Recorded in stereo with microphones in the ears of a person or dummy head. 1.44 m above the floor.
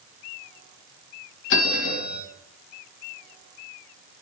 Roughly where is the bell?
Left.